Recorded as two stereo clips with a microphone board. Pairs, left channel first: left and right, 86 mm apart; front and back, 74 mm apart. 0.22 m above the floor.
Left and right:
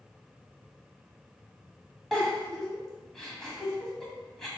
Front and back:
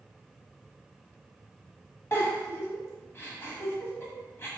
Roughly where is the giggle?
Ahead.